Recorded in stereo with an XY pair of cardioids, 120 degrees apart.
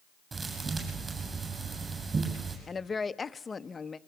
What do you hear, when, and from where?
0.3 s a thud: 30° right, 8.5 m
2.7 s a woman speaking: 25° left, 1.0 m